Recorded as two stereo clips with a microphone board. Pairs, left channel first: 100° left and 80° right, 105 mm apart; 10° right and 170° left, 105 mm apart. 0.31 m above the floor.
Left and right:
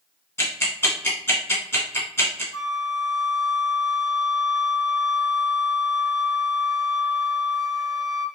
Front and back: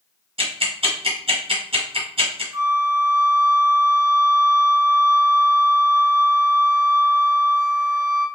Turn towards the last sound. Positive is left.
turn(degrees=120)